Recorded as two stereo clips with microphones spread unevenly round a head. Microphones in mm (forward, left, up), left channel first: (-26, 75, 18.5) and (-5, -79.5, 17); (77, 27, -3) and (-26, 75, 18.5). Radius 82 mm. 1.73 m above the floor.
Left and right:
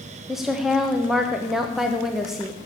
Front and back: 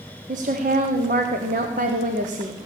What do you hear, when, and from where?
0.3 s a woman speaking: 170° right, 0.9 m